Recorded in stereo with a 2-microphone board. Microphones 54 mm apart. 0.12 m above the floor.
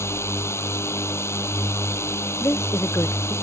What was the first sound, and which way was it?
A drone, 60° left (ahead or behind).